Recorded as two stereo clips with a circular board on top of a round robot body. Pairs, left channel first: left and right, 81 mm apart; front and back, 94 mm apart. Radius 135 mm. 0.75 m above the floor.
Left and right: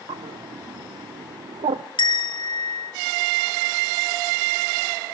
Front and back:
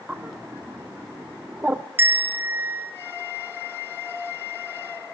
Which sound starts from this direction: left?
A bell, at 2.0 s.